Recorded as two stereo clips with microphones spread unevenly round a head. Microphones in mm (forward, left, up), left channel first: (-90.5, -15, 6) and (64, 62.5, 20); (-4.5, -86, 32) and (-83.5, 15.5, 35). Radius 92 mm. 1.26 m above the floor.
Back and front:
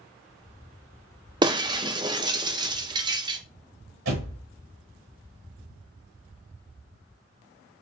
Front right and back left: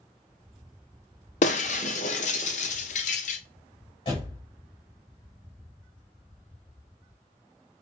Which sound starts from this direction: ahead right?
Breaking glass, at 1.4 s.